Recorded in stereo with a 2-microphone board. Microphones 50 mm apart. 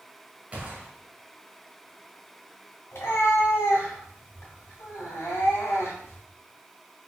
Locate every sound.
0.5 s a gunshot: 30° right (ahead or behind), 1.0 m
2.9 s a cat meowing: 70° left (ahead or behind), 2 m